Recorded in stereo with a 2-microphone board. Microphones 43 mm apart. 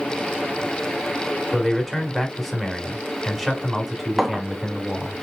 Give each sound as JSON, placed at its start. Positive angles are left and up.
{"t": 1.5, "sound": "a man speaking", "side_deg": 0, "distance_m": 1.2}
{"t": 4.2, "sound": "a clink", "side_deg": -5, "distance_m": 0.6}